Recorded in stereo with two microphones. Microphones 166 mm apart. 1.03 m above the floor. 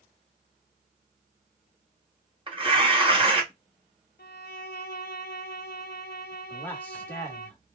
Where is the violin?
75° left (ahead or behind), 0.6 m.